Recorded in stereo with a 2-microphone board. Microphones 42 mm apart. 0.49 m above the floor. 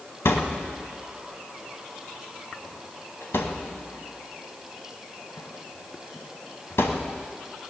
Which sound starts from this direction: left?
A thud, at 0.2 s.